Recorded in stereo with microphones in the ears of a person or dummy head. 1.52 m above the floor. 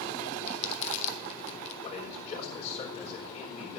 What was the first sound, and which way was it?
Crumpling, 40° left (ahead or behind).